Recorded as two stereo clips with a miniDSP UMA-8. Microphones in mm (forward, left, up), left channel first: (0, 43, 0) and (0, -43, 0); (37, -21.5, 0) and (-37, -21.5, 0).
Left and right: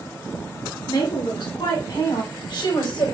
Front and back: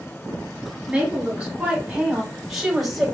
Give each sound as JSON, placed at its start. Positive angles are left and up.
{"t": 0.9, "sound": "a woman speaking", "azimuth_deg": 100, "distance_m": 2.5}